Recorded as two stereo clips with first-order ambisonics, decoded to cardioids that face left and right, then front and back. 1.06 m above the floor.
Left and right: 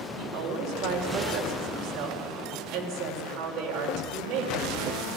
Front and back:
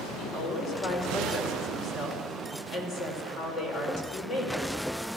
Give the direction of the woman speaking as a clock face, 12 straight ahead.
2 o'clock.